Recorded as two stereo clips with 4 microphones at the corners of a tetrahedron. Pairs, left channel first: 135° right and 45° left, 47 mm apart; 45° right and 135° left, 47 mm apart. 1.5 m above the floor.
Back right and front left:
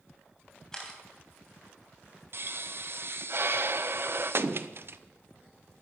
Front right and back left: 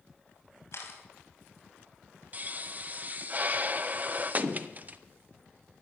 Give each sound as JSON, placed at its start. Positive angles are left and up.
{"t": 0.7, "sound": "a camera shutter", "azimuth_deg": -60, "distance_m": 3.0}
{"t": 2.3, "sound": "a pop", "azimuth_deg": 80, "distance_m": 0.7}